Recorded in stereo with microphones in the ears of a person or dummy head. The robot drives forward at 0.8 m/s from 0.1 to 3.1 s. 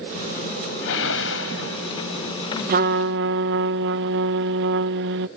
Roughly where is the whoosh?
Left.